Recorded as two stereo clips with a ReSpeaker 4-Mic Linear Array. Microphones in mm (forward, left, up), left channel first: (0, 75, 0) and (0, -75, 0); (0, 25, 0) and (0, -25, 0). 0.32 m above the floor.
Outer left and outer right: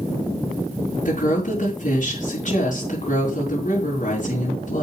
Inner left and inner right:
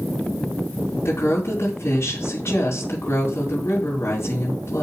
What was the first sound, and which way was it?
A woman speaking, 60° left (ahead or behind).